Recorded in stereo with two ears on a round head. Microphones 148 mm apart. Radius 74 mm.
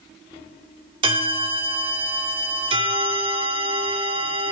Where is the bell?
30° right (ahead or behind), 1.6 m.